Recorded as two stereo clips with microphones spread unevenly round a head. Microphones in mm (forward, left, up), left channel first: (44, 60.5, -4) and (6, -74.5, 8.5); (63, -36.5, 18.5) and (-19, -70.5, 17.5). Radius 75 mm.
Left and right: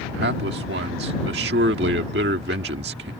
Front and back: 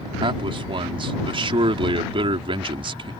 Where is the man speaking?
135° right.